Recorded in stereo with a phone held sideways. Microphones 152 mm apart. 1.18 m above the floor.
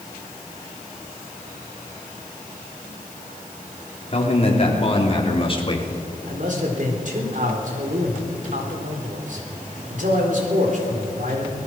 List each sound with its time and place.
4.1 s a man speaking: 40° left (ahead or behind), 4 m; by 5.9 s 35° left (ahead or behind), 2.5 m
6.3 s a man speaking: 60° right (ahead or behind), 4 m